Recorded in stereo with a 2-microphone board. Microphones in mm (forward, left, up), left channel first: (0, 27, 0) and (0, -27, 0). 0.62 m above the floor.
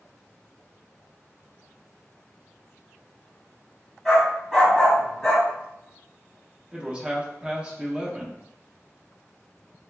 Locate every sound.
4.0 s a dog barking: centre (ahead or behind), 1.3 m
6.7 s a man speaking: 20° right (ahead or behind), 0.6 m